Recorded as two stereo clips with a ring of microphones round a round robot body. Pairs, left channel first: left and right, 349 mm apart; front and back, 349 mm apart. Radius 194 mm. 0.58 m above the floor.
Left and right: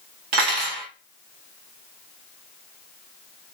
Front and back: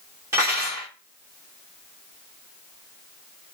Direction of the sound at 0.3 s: 100° right.